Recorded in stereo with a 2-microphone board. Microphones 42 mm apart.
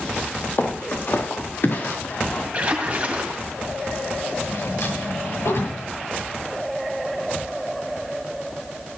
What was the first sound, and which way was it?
Footsteps, 45° left (ahead or behind).